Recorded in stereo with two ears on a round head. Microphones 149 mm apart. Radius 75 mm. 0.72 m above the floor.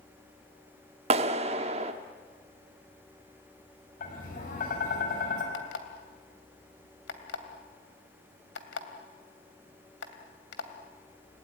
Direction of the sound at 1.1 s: 35° right (ahead or behind).